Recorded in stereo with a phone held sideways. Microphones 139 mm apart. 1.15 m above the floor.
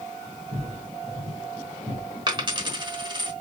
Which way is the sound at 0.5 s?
25° right (ahead or behind).